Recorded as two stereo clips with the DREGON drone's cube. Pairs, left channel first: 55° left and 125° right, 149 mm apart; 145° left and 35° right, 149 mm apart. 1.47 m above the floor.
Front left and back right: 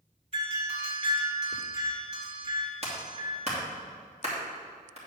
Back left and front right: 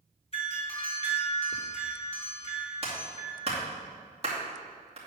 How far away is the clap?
About 2.5 m.